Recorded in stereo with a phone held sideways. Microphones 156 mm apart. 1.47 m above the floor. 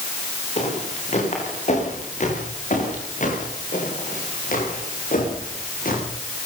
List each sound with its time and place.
0.6 s footsteps: 45° left (ahead or behind), 10 m; by 6.0 s 70° left (ahead or behind), 11.5 m